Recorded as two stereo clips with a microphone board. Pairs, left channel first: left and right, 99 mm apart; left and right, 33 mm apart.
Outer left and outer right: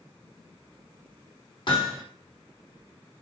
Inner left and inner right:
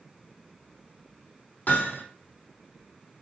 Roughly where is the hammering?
Left.